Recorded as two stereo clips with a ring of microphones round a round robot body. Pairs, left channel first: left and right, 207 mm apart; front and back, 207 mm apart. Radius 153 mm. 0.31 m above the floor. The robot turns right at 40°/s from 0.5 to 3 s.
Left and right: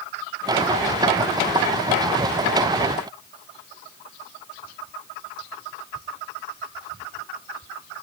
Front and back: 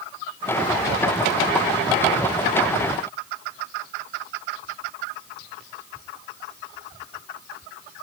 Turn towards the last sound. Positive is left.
No sound to turn to.